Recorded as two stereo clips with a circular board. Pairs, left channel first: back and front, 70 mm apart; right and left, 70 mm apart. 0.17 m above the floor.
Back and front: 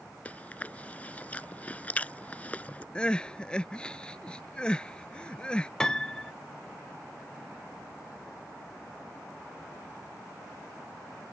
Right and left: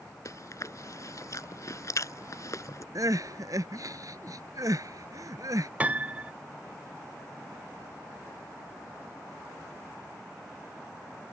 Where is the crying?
105° left.